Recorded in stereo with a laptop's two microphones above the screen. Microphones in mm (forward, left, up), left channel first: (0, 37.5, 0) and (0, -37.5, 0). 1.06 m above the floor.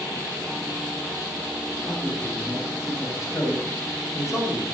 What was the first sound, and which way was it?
A man speaking, 45° left (ahead or behind).